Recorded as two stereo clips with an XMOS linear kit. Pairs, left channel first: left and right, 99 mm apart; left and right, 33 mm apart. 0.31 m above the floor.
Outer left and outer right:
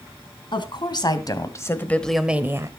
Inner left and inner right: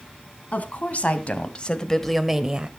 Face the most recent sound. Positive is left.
turn(degrees=-35)  # may be behind; listen again after turning